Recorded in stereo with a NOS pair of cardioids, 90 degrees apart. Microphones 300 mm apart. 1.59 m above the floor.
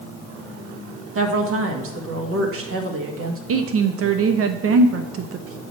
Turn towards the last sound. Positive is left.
turn(degrees=-50)